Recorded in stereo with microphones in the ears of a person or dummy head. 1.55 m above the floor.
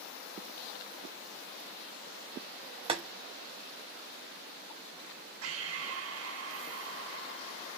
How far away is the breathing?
About 1.2 m.